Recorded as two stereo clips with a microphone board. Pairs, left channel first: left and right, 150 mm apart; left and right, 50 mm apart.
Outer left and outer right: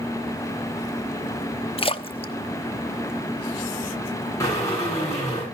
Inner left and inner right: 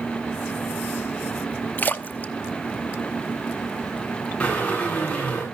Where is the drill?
20° left (ahead or behind), 8 m.